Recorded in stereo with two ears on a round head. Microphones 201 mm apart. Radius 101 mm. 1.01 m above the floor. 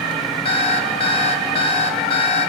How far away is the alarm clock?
About 2 m.